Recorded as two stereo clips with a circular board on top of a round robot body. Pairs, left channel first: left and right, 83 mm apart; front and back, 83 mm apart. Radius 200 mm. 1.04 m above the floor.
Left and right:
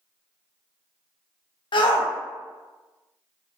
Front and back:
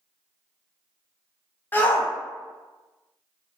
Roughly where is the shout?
Ahead left.